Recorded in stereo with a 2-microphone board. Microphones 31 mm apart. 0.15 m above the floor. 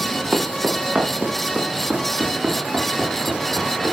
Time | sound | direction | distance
0.3 | footsteps | 25° right (ahead or behind) | 4.5 m